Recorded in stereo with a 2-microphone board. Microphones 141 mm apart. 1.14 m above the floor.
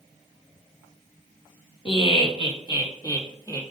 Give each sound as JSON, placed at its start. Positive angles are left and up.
{"t": 1.9, "sound": "laughter", "side_deg": 40, "distance_m": 1.7}